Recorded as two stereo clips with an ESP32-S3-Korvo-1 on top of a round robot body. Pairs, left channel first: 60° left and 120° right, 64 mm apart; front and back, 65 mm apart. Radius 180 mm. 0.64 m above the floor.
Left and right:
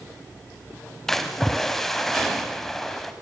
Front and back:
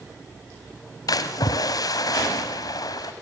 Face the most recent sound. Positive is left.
turn(degrees=-25)